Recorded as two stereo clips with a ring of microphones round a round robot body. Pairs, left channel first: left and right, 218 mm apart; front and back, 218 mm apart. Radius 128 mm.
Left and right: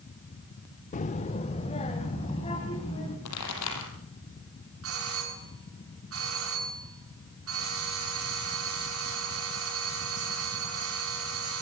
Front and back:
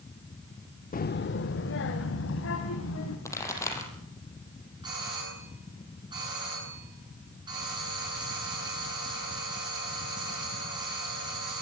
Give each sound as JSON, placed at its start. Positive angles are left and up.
{"t": 0.9, "sound": "a child speaking", "azimuth_deg": 40, "distance_m": 0.7}
{"t": 3.2, "sound": "a pop", "azimuth_deg": 75, "distance_m": 6.0}
{"t": 4.8, "sound": "a doorbell", "azimuth_deg": -105, "distance_m": 9.0}